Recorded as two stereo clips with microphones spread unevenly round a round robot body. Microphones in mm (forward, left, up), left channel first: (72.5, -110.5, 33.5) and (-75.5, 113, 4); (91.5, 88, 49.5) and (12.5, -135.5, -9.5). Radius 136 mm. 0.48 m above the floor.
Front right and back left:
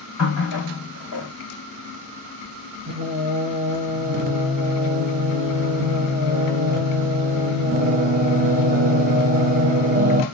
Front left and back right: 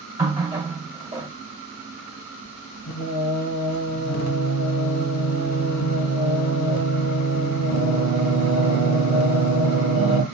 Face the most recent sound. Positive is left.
turn(degrees=60)